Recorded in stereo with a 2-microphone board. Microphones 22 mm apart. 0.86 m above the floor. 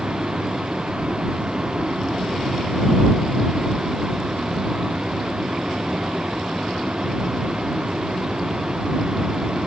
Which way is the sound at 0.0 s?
45° right (ahead or behind).